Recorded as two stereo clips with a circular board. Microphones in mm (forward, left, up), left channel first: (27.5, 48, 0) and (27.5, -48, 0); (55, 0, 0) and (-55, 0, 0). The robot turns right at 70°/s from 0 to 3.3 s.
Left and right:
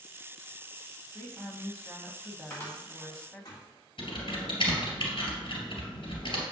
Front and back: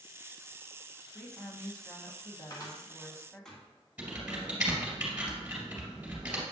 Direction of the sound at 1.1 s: 110° right.